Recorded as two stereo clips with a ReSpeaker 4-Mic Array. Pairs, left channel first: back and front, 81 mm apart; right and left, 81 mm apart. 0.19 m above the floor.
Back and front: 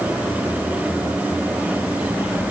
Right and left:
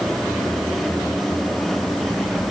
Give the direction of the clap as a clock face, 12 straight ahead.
No clap in this recording.